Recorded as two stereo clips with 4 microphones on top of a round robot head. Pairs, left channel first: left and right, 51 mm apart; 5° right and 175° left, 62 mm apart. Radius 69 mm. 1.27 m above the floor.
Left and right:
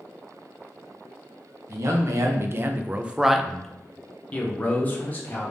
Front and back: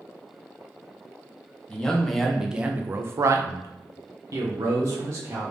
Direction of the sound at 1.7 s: 80° right.